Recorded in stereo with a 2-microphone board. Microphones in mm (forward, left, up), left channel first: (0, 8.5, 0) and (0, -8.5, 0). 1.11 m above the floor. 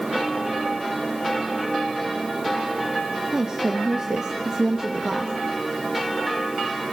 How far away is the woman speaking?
About 0.9 m.